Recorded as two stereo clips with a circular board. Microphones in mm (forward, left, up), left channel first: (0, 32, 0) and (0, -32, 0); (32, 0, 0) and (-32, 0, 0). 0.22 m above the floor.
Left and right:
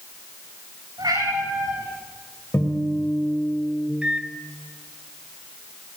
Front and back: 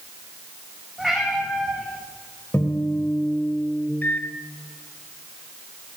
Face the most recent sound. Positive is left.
turn(degrees=-30)